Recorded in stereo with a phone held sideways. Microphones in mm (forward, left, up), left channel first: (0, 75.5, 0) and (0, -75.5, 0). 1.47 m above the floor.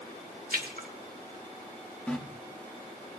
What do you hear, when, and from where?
0.5 s a splash: 85° right, 2 m
2.1 s a running tap: 5° left (ahead or behind), 1.5 m